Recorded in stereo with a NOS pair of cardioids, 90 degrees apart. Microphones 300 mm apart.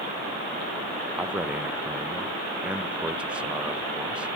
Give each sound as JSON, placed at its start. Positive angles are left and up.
{"t": 1.1, "sound": "a man speaking", "azimuth_deg": -5, "distance_m": 0.8}